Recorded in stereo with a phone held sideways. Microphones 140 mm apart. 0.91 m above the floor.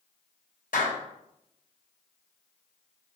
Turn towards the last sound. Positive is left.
turn(degrees=80)